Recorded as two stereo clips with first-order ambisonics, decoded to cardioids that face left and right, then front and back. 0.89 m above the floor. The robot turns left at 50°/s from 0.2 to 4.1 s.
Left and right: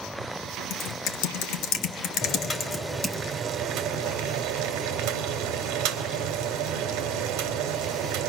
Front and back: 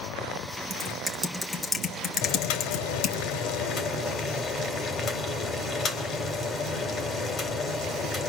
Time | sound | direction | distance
0.7 | typing on a keyboard | 130° left | 1.5 m
2.2 | boiling | 35° left | 3 m